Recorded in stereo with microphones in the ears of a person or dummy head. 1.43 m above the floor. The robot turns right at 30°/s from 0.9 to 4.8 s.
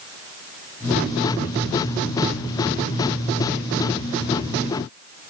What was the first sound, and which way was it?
Only background noise.